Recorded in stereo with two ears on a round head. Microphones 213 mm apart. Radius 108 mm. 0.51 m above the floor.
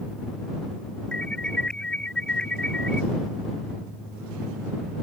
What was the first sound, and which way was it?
An alarm, 5° left (ahead or behind).